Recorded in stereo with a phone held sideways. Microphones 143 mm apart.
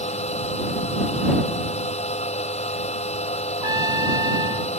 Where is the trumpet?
30° right (ahead or behind).